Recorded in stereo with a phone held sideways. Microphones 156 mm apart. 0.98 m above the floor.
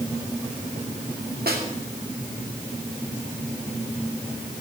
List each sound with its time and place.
1.5 s a snare drum: 75° right (ahead or behind), 2.5 m